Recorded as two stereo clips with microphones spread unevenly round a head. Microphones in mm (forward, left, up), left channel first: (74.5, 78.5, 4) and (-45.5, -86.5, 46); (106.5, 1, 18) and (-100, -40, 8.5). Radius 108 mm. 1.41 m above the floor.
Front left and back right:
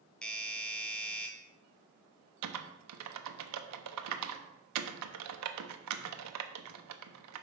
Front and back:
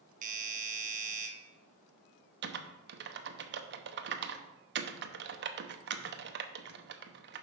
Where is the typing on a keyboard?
130° right, 0.8 m.